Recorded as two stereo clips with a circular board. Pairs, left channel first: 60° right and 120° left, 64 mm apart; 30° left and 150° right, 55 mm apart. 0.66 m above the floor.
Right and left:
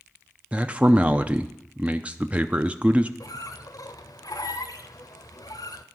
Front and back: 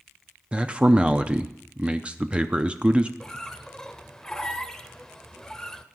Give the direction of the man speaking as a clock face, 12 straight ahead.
6 o'clock.